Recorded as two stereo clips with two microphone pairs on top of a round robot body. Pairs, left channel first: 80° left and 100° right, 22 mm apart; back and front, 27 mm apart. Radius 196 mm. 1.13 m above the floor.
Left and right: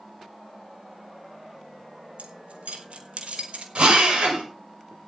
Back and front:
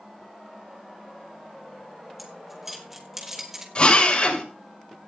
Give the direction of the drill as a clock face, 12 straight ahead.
4 o'clock.